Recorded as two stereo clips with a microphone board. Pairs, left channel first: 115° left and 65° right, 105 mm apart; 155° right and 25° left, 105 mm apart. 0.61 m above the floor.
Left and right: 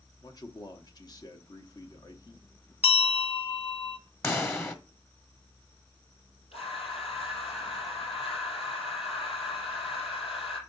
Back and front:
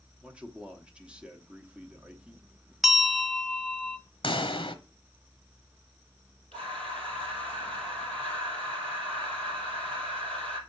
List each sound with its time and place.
0.2 s a man speaking: 95° left, 0.9 m
2.8 s a bell: 110° left, 0.7 m
4.2 s a pop: 175° left, 1.0 m
6.5 s breathing: 125° left, 4.5 m